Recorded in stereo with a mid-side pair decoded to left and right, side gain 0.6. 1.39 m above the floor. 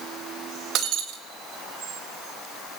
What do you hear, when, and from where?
0.8 s breaking glass: 60° right, 3 m